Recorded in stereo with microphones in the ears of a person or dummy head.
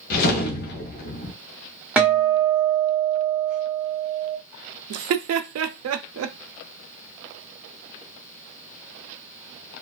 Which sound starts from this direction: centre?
A guitar, at 2.0 s.